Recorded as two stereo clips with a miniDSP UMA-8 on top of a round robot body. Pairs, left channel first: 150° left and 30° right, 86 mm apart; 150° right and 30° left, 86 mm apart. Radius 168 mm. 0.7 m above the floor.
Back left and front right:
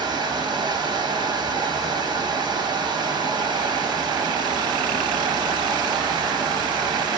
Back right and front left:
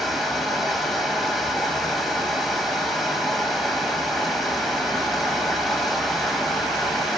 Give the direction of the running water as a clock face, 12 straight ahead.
2 o'clock.